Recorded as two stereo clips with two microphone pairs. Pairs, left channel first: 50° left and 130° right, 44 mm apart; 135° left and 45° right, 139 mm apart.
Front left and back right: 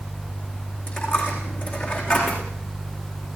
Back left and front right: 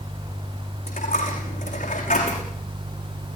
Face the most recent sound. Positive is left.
turn(degrees=100)